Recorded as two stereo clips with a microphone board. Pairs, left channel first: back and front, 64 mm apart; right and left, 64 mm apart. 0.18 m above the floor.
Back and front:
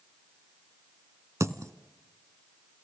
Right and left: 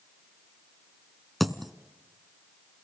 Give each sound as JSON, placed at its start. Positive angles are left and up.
{"t": 1.4, "sound": "a dropped coin", "azimuth_deg": 0, "distance_m": 0.9}